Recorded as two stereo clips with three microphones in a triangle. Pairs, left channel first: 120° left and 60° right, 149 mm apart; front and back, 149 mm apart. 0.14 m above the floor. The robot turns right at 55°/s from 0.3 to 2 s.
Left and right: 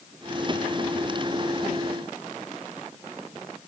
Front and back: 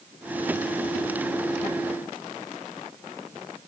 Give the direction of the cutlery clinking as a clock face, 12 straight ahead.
I don't hear cutlery clinking.